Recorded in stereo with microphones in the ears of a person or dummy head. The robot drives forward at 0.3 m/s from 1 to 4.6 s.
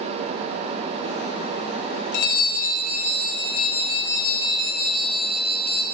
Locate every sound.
2.1 s a bell: 55° left (ahead or behind), 0.9 m; by 5.8 s 30° left (ahead or behind), 1.3 m